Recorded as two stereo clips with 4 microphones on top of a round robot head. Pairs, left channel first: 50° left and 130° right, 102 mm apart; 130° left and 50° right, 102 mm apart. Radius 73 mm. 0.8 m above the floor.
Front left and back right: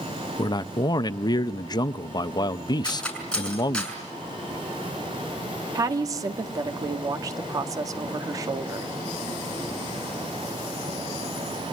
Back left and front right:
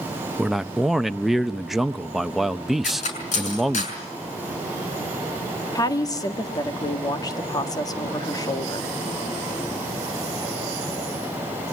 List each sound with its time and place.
0.4 s a man speaking: 35° left, 0.6 m
2.8 s cutlery clinking: 135° left, 6 m
5.8 s a woman speaking: straight behind, 1.7 m